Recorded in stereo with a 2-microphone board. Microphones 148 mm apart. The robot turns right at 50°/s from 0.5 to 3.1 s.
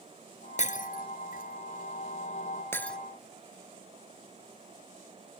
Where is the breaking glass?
55° left (ahead or behind); by 3.0 s 5° left (ahead or behind).